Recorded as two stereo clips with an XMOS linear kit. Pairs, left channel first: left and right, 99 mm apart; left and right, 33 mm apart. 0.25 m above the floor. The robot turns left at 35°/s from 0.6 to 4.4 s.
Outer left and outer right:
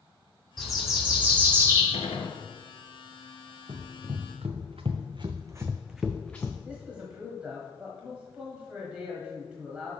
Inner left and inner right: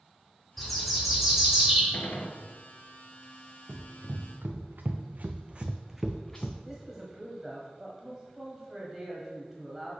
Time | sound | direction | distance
0.6 | a bird | straight ahead | 2 m
1.9 | a gunshot | 85° left | 0.9 m
3.7 | running footsteps | 60° right (ahead or behind) | 1.5 m
6.7 | a man speaking | 10° right (ahead or behind) | 1.4 m